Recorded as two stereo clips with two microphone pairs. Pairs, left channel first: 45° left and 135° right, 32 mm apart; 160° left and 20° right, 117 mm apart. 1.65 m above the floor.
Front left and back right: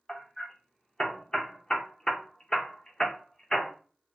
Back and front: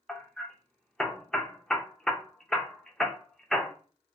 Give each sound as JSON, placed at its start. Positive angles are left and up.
{"t": 0.1, "sound": "hammering", "azimuth_deg": 75, "distance_m": 0.5}